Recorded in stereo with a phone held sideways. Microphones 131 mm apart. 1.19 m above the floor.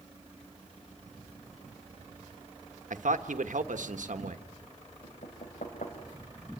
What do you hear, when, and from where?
2.9 s a man speaking: 80° right, 1.3 m
5.0 s knocking: 80° left, 4 m